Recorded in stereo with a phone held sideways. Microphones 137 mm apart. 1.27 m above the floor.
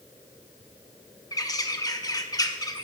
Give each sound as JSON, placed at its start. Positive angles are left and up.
{"t": 1.3, "sound": "a bird", "side_deg": 25, "distance_m": 0.9}